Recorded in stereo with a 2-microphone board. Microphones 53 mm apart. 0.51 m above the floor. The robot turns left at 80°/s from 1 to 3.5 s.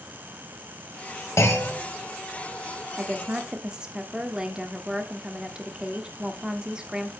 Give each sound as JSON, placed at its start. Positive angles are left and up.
{"t": 1.4, "sound": "a clunk", "azimuth_deg": 75, "distance_m": 2.0}
{"t": 3.0, "sound": "a woman speaking", "side_deg": -30, "distance_m": 1.4}